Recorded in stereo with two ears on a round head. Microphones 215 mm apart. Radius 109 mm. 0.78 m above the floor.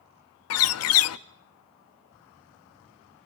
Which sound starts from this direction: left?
A bird, at 0.5 s.